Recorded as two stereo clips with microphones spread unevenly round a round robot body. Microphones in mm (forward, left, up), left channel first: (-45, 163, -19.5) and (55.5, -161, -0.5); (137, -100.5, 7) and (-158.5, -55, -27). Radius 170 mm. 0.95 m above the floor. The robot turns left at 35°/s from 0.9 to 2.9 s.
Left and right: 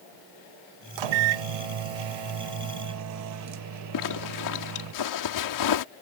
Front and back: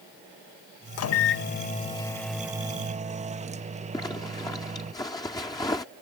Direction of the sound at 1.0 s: 50° right.